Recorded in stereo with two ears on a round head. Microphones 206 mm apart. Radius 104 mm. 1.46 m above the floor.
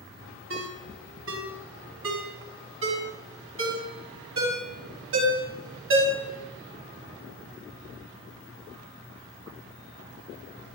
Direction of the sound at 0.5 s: 65° right (ahead or behind).